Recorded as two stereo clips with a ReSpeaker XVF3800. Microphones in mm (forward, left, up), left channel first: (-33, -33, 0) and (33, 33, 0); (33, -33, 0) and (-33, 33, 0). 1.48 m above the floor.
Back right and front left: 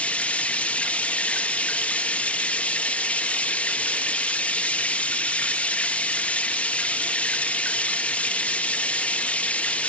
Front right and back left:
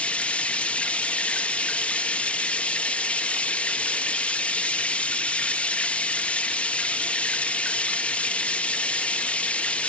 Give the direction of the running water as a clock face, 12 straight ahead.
3 o'clock.